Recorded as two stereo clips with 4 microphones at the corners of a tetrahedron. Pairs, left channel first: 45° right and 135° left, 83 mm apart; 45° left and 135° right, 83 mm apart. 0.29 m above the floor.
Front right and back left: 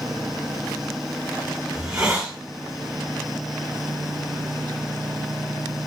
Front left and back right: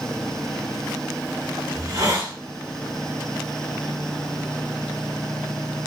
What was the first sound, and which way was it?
A hiss, 150° right.